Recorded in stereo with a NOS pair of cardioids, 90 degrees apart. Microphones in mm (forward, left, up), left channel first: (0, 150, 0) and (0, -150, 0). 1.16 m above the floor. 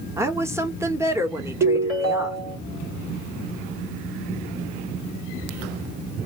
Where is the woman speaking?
10° right, 1.6 m.